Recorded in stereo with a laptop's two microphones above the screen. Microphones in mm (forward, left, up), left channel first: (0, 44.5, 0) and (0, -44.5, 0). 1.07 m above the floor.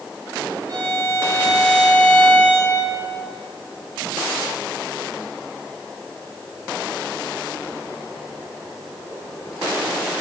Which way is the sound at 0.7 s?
30° right (ahead or behind).